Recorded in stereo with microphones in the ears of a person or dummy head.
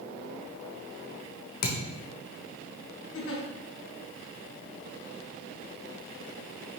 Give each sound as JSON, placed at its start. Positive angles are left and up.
{"t": 1.6, "sound": "a thud", "side_deg": 55, "distance_m": 1.3}
{"t": 3.1, "sound": "a giggle", "side_deg": 65, "distance_m": 1.8}